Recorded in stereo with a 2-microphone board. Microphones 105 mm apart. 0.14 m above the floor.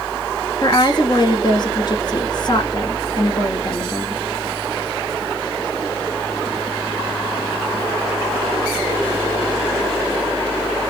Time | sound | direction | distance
0.6 | a woman speaking | 45° left (ahead or behind) | 1.6 m